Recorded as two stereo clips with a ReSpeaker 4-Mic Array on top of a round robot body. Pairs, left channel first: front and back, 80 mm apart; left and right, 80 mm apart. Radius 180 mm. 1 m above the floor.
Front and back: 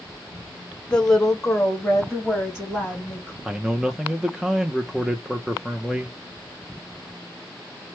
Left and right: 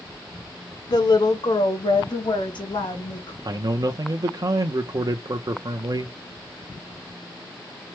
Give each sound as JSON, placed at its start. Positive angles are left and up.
{"t": 0.9, "sound": "a woman speaking", "azimuth_deg": 75, "distance_m": 0.8}
{"t": 3.5, "sound": "a man speaking", "azimuth_deg": -95, "distance_m": 0.7}